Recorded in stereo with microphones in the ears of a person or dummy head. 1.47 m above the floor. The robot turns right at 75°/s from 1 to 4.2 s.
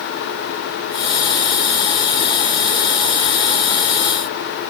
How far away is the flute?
I don't hear a flute.